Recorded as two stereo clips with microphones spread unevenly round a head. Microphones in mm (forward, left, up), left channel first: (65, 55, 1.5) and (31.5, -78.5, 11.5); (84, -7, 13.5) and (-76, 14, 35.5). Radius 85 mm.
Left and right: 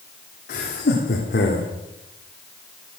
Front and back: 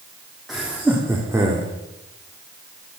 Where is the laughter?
80° left, 2.5 m; by 1.7 s 100° left, 3 m.